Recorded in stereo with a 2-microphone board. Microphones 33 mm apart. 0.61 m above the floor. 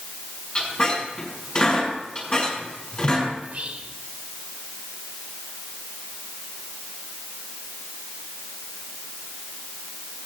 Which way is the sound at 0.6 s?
30° left (ahead or behind).